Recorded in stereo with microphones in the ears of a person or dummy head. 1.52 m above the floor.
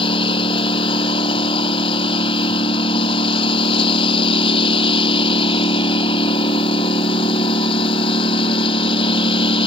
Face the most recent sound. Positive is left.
turn(degrees=30)  # may be behind; listen again after turning